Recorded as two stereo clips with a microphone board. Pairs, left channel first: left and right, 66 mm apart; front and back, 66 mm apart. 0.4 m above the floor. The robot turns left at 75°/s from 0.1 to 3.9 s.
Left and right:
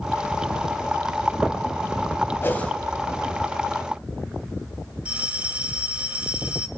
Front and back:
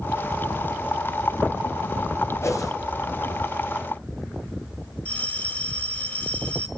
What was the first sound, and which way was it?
A whoosh, 40° left.